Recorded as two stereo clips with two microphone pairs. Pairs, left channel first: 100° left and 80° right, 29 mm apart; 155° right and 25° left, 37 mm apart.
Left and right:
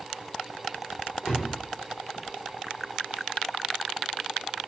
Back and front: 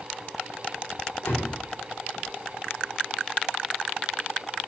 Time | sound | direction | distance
1.2 | a door slam | 165° right | 4.5 m